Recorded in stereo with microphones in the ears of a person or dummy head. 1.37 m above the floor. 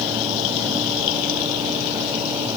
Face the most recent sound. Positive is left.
No sound to turn to.